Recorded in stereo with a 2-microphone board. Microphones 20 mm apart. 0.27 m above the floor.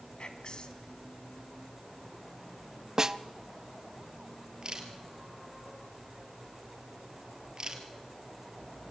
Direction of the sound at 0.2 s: 45° left (ahead or behind).